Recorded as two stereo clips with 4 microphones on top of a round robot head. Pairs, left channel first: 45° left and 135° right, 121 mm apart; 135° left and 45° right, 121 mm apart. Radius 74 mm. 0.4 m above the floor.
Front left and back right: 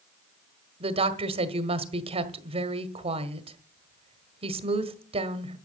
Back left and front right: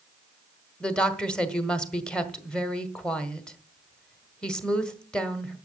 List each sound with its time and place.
0.8 s a woman speaking: 145° right, 1.3 m